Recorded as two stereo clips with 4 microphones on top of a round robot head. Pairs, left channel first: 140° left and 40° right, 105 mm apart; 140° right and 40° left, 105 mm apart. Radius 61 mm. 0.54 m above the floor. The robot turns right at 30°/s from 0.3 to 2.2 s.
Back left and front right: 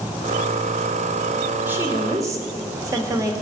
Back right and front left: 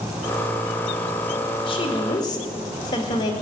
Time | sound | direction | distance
1.7 | a woman speaking | 110° right | 2 m